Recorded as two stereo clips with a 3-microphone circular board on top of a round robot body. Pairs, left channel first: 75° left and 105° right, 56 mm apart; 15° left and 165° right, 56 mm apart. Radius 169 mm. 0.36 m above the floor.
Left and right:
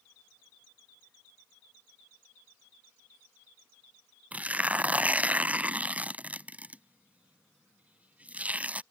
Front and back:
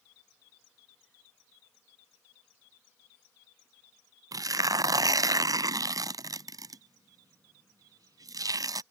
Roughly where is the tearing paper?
Behind.